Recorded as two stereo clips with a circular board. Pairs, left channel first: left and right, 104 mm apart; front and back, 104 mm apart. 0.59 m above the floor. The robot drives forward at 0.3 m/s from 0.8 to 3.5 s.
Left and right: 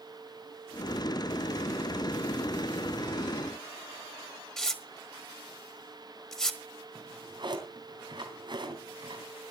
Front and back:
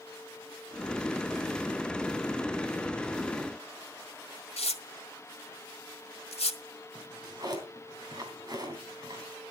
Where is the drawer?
130° right, 3 m.